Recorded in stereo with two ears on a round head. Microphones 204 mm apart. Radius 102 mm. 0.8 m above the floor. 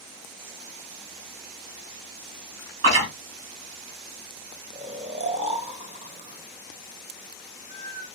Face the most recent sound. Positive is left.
turn(degrees=-30)  # may be behind; listen again after turning